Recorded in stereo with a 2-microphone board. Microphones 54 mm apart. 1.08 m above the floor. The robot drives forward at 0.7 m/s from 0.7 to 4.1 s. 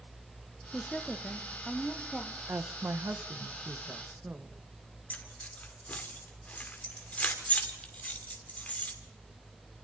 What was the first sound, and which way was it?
A woman speaking, 15° left (ahead or behind).